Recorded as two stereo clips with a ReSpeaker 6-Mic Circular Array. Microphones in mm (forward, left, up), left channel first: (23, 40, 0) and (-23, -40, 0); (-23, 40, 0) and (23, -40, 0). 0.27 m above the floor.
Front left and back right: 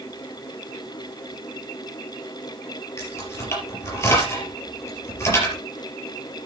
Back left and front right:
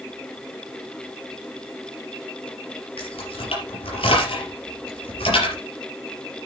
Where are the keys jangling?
120° left, 4.5 m.